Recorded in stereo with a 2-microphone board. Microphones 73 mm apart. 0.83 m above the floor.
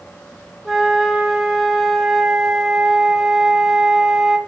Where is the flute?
5° right (ahead or behind), 1.8 m.